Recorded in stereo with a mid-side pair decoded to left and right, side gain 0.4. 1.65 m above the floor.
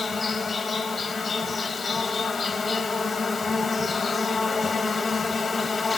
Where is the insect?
25° left, 4 m.